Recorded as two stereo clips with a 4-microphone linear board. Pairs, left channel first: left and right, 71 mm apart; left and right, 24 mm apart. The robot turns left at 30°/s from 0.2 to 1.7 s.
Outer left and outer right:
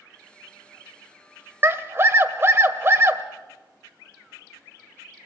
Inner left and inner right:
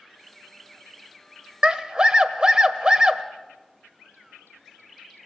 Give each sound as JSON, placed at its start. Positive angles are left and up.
{"t": 1.6, "sound": "a scream", "side_deg": -35, "distance_m": 1.4}